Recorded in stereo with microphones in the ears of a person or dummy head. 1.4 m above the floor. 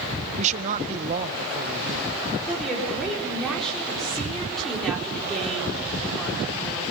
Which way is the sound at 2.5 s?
Centre (ahead or behind).